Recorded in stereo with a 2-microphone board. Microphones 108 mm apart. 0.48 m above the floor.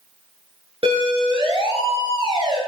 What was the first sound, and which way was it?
A siren, 60° right (ahead or behind).